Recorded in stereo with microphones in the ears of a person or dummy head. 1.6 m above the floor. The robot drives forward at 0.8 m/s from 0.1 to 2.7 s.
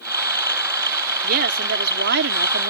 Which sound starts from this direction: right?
A woman speaking, at 1.2 s.